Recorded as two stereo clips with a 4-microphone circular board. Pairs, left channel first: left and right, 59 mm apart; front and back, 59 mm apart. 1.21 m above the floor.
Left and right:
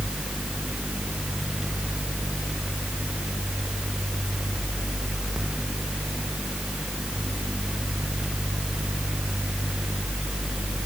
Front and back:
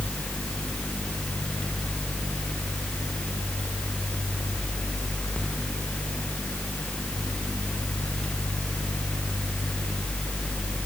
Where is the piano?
No piano in this recording.